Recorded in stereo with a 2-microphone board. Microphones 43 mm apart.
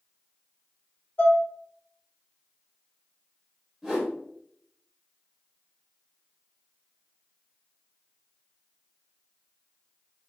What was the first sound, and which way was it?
Dishes clattering, 55° left (ahead or behind).